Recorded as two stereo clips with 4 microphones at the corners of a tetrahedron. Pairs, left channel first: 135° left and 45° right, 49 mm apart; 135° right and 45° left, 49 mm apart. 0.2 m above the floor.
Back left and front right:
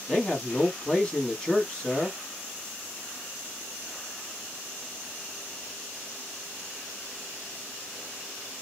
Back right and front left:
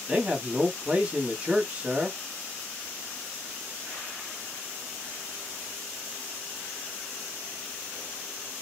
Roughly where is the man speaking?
Left.